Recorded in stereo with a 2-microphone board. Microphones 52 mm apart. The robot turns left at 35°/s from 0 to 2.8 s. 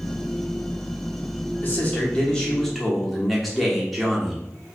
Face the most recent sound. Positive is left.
turn(degrees=0)